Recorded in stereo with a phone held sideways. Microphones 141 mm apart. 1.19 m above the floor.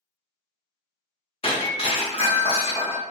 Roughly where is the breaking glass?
Left.